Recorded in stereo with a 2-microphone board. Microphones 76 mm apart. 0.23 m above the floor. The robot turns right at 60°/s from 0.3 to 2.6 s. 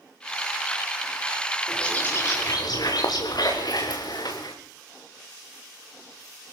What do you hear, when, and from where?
1.7 s a bird: 5° left, 5.5 m; by 4.5 s 60° left, 5.5 m